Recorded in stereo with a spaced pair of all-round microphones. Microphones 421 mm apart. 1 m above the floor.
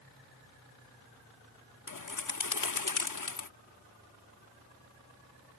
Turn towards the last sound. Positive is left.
turn(degrees=50)  # may be behind; listen again after turning